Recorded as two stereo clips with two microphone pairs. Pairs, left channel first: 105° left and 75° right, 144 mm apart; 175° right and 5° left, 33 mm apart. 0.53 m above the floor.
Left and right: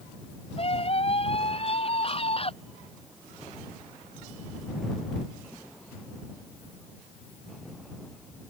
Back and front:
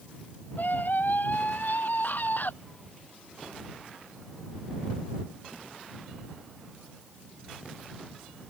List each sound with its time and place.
0.6 s a scream: 155° left